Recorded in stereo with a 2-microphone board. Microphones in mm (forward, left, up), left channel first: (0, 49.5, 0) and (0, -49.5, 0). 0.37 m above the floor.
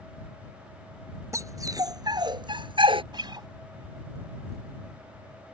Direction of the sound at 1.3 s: 30° right (ahead or behind).